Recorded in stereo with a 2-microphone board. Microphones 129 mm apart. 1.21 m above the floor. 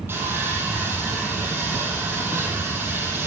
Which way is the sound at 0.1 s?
20° right (ahead or behind).